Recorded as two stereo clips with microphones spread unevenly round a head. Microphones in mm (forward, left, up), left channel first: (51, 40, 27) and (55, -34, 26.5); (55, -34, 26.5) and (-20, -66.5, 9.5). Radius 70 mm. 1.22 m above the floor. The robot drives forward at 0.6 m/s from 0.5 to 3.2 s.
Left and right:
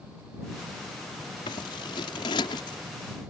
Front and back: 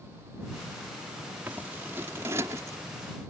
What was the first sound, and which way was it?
Scissors, 125° left.